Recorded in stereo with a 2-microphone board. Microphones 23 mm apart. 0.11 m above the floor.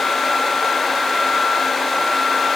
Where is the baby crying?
No baby crying in this recording.